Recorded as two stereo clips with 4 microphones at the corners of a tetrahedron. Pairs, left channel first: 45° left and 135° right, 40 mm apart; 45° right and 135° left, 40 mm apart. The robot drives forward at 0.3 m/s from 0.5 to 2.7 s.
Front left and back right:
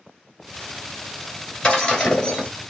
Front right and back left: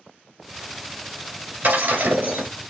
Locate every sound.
1.6 s breaking glass: 115° left, 3 m; by 2.5 s 120° left, 3 m